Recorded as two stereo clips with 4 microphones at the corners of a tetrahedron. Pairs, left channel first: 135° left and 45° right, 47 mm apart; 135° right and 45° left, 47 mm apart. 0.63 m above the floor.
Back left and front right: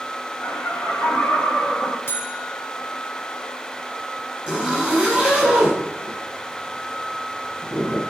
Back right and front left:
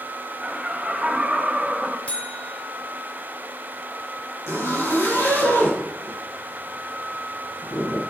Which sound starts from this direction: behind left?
Laughter, at 0.4 s.